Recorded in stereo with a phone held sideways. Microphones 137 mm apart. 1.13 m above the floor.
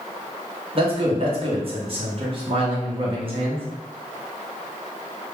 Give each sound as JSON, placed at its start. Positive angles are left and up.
{"t": 0.8, "sound": "a man speaking", "side_deg": -40, "distance_m": 0.9}